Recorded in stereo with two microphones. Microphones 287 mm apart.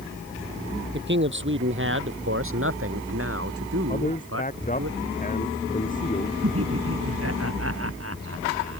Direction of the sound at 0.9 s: 40° right (ahead or behind).